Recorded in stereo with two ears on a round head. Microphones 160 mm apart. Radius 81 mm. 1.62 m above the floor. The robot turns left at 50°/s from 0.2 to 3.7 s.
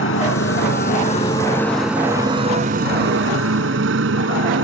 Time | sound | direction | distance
0.0 | a motorcycle | 80° left | ?